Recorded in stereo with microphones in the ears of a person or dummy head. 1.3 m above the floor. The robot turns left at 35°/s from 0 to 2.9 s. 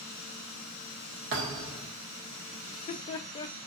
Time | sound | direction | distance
1.3 | a thud | 60° right (ahead or behind) | 1.2 m
2.7 | laughter | 20° left (ahead or behind) | 0.7 m